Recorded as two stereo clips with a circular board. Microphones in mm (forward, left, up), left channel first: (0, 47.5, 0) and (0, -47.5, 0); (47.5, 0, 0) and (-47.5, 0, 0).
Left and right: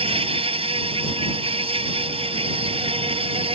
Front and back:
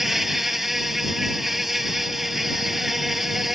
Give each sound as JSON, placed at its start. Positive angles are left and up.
{"t": 0.0, "sound": "an insect", "azimuth_deg": -95}